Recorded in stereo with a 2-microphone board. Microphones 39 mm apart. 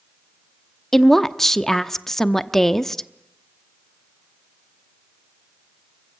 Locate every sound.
0.9 s a woman speaking: 5° left (ahead or behind), 0.9 m